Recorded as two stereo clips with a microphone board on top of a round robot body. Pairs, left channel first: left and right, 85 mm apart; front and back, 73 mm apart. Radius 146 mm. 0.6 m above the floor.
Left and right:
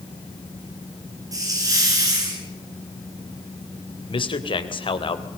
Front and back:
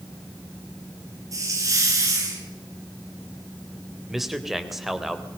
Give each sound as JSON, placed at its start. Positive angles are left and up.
{"t": 1.3, "sound": "a hiss", "azimuth_deg": -140, "distance_m": 7.5}
{"t": 4.1, "sound": "a man speaking", "azimuth_deg": 95, "distance_m": 3.5}